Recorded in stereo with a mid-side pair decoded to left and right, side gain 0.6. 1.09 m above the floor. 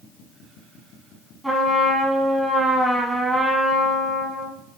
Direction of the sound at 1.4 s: 10° right.